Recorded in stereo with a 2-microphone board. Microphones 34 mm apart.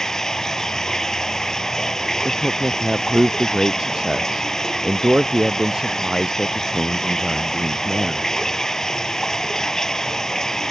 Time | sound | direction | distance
0.0 | running water | 15° left (ahead or behind) | ?
2.2 | a man speaking | 20° right (ahead or behind) | ?